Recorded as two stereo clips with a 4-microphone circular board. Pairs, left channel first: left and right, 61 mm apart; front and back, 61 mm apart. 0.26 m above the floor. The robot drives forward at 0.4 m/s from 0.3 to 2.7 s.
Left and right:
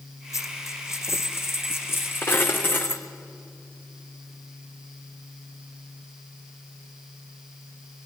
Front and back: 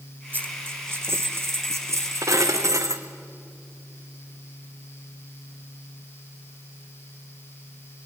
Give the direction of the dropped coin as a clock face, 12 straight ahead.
8 o'clock.